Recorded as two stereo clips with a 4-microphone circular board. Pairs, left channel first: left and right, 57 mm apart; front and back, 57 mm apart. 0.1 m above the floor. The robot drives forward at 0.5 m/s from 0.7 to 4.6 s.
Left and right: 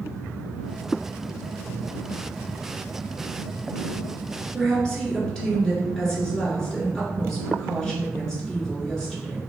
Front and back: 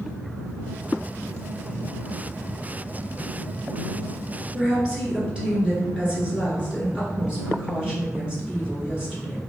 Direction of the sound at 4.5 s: 145° left.